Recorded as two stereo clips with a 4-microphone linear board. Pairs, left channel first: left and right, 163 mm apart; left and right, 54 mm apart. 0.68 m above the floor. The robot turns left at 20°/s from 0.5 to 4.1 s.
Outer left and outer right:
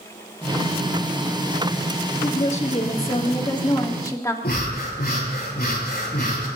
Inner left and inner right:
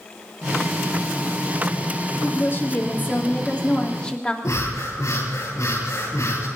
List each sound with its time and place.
2.2 s a woman speaking: 60° left, 1.6 m; by 4.3 s 25° left, 1.6 m
4.4 s breathing: 70° left (ahead or behind), 7.5 m